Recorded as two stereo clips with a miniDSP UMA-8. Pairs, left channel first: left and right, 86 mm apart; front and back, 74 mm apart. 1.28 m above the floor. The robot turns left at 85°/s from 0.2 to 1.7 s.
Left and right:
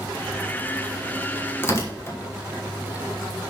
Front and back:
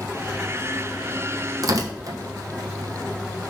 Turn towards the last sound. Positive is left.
turn(degrees=145)